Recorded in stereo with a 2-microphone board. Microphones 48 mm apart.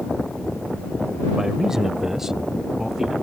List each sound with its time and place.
1.4 s a man speaking: 10° right (ahead or behind)